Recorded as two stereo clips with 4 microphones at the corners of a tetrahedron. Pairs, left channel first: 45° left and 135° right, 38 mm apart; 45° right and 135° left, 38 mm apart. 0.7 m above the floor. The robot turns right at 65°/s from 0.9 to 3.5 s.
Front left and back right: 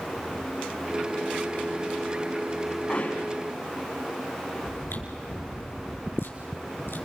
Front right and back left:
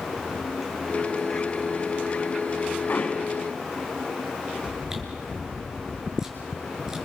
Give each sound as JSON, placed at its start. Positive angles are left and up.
{"t": 2.9, "sound": "hammering", "azimuth_deg": -10, "distance_m": 6.0}
{"t": 4.6, "sound": "chewing", "azimuth_deg": 60, "distance_m": 6.5}